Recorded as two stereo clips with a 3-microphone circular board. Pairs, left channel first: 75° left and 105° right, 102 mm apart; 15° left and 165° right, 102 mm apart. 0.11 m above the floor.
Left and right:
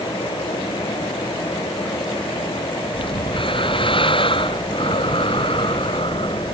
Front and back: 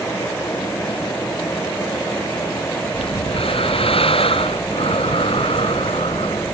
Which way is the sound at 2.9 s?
40° left.